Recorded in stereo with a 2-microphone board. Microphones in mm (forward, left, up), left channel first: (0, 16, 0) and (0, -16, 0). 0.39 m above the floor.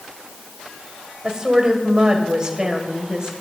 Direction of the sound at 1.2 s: 25° right (ahead or behind).